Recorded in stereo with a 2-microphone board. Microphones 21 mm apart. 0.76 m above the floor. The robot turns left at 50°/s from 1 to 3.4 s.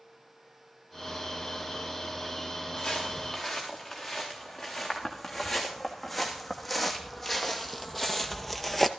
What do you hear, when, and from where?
2.8 s footsteps: 30° left (ahead or behind), 5.5 m; by 8.9 s centre (ahead or behind), 1.0 m